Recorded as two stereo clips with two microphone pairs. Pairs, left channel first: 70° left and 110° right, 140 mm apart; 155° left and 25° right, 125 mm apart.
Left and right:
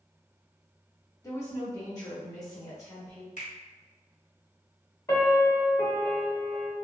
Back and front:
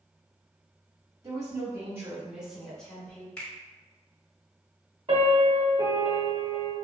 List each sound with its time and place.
1.2 s a woman speaking: 20° left, 1.4 m; by 3.3 s 110° left, 1.1 m
3.4 s a finger snap: 75° left, 1.5 m
5.1 s a piano: 10° left, 0.8 m